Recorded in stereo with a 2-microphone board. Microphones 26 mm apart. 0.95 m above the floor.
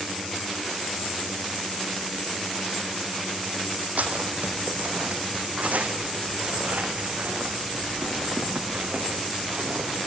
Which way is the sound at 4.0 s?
70° right (ahead or behind).